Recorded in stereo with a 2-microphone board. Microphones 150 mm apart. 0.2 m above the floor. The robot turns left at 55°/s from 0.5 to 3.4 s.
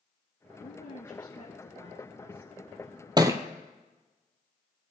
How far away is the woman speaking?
About 5.5 m.